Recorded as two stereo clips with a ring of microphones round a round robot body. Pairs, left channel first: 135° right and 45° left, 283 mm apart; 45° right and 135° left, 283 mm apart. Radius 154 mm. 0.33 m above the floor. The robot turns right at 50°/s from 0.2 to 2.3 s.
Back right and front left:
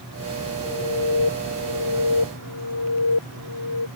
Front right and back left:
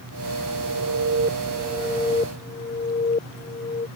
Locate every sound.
0.6 s an alarm: 165° left; by 3.9 s 115° right